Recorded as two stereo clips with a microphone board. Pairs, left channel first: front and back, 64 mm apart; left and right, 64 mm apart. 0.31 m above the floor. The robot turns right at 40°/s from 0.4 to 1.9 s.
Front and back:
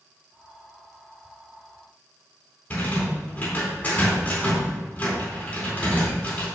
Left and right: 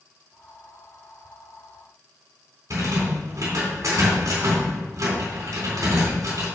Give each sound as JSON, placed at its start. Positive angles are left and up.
{"t": 2.7, "sound": "a rattle", "azimuth_deg": -60, "distance_m": 3.5}